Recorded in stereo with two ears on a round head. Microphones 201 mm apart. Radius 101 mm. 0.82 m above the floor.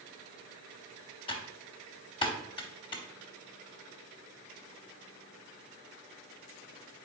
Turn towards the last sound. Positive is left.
turn(degrees=25)  # may be behind; listen again after turning